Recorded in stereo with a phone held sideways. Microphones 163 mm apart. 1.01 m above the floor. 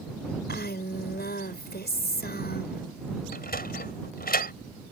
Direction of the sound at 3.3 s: 70° left (ahead or behind).